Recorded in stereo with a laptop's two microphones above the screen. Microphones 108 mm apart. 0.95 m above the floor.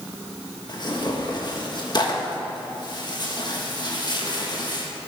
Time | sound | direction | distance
0.7 | tearing paper | 45° left (ahead or behind) | 1.3 m